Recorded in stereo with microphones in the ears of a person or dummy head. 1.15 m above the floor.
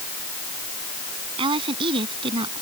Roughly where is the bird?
I don't hear a bird.